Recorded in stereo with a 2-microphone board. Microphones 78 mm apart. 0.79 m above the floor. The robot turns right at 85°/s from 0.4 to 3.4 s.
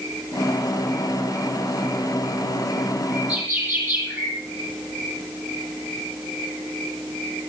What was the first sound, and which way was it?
A bird, centre (ahead or behind).